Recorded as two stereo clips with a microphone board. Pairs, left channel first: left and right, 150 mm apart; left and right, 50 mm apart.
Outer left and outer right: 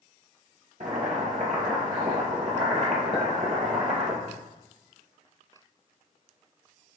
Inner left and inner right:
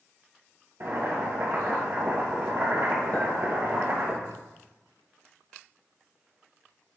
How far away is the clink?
About 2 m.